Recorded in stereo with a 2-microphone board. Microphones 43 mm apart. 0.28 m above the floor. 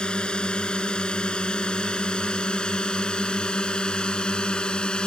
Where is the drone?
20° left (ahead or behind).